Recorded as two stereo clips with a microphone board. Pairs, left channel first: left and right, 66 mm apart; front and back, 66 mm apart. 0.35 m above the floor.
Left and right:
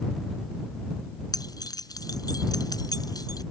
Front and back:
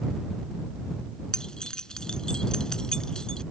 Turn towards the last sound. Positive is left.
turn(degrees=80)